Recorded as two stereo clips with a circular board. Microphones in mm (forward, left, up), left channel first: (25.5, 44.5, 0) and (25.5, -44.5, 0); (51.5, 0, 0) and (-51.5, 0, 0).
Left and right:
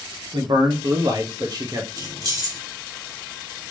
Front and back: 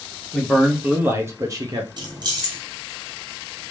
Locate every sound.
0.3 s a man speaking: 90° right, 1.2 m; by 1.9 s 135° right, 1.4 m
2.0 s keys jangling: 135° right, 1.4 m